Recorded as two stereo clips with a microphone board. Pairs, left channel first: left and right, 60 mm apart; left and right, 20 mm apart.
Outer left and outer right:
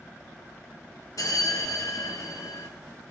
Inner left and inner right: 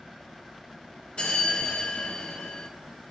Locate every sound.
1.2 s a bell: 75° left (ahead or behind), 0.6 m